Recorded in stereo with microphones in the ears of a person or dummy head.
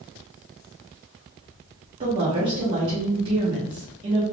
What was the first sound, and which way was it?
A woman speaking, 30° right (ahead or behind).